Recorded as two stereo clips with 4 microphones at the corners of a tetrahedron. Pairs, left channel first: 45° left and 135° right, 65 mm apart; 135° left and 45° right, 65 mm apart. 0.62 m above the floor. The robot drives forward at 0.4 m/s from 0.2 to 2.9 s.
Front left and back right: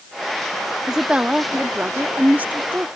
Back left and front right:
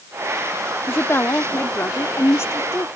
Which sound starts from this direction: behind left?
A woman speaking, at 0.9 s.